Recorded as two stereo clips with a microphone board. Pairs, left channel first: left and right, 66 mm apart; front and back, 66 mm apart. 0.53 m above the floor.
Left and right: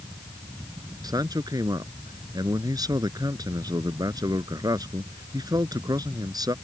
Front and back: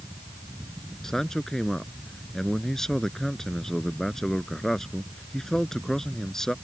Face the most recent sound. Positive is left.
turn(degrees=-85)